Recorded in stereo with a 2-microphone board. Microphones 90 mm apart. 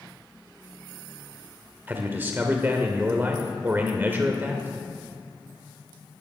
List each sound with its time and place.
1.9 s a man speaking: 25° right (ahead or behind), 1.1 m